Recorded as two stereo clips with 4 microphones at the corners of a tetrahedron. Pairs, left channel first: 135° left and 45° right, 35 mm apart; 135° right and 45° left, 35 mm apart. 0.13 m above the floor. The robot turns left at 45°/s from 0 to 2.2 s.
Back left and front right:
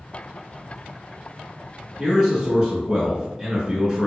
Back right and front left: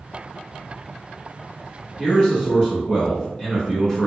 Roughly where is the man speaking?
Right.